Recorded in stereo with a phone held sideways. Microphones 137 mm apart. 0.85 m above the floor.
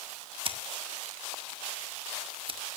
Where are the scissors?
45° right (ahead or behind), 1.7 m.